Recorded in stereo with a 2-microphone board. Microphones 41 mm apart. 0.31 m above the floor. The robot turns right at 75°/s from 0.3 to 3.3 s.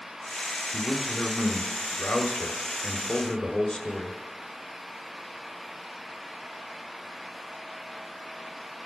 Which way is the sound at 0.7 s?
15° right (ahead or behind).